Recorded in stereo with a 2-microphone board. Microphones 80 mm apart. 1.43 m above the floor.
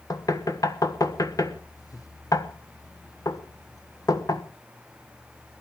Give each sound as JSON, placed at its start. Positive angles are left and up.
{"t": 0.1, "sound": "knocking", "side_deg": 50, "distance_m": 1.2}